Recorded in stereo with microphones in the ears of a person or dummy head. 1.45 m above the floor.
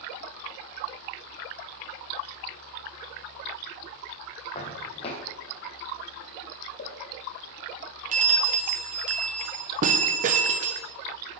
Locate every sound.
4.5 s footsteps: 35° left (ahead or behind), 3.5 m
6.8 s a pop: 50° left (ahead or behind), 1.9 m
8.1 s a bell: 40° right (ahead or behind), 1.2 m